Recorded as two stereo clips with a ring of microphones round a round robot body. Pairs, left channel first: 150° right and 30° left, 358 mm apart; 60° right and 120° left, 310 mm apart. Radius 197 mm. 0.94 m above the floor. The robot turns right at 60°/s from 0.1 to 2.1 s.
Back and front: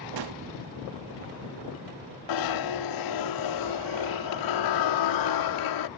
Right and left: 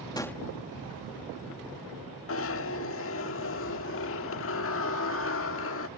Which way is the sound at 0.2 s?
15° left.